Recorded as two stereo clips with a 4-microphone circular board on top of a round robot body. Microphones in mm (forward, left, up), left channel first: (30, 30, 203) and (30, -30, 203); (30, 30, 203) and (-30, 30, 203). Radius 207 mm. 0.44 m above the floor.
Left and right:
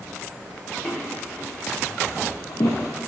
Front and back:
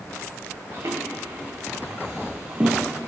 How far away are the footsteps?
About 3 m.